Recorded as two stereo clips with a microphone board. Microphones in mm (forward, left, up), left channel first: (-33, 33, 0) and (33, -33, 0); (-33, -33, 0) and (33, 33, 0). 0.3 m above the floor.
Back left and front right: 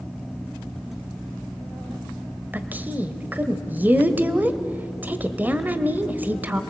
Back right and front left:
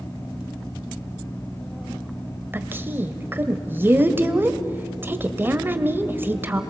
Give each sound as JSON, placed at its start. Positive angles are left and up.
{"t": 2.5, "sound": "a woman speaking", "azimuth_deg": 5, "distance_m": 1.2}